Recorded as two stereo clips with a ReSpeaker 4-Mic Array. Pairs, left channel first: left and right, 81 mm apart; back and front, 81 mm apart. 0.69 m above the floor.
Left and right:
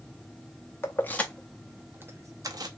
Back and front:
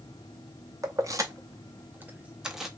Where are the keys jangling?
35° left, 0.7 m; by 2.7 s 85° right, 0.7 m.